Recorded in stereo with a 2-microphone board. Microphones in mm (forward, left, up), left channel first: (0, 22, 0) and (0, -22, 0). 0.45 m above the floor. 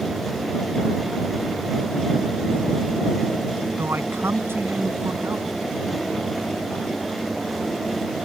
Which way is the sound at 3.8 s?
75° right (ahead or behind).